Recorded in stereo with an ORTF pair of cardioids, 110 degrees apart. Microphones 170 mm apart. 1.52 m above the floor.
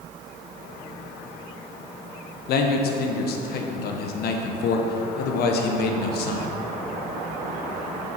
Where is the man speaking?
70° left, 1.1 m.